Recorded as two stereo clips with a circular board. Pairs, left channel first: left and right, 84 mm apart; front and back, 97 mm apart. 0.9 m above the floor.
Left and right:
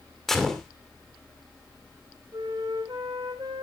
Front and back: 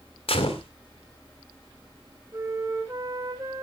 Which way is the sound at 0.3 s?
5° left.